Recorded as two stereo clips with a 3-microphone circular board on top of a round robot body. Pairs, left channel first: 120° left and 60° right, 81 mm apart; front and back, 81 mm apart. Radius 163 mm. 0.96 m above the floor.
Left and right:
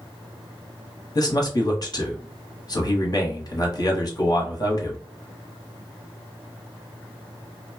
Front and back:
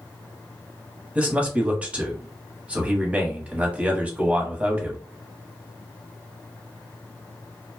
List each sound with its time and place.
1.1 s a man speaking: 110° left, 1.2 m